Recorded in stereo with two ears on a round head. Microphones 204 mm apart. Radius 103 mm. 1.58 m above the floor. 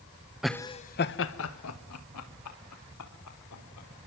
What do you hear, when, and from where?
0.4 s laughter: 5° right (ahead or behind), 1.0 m; by 3.9 s 85° left, 5 m